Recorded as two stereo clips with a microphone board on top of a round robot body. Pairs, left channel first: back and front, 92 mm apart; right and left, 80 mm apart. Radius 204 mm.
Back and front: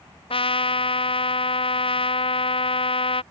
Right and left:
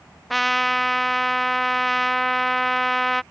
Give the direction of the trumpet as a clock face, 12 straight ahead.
6 o'clock.